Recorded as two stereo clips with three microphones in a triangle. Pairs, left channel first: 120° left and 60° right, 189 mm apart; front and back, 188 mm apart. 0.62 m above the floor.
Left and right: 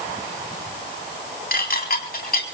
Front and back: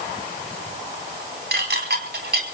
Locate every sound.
1.5 s dishes clattering: 155° left, 3.5 m